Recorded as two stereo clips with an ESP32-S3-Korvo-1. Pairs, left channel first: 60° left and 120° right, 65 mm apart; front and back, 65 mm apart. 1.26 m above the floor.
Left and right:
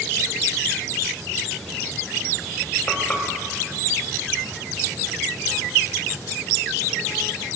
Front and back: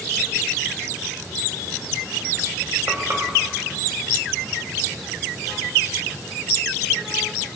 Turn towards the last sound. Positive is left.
turn(degrees=130)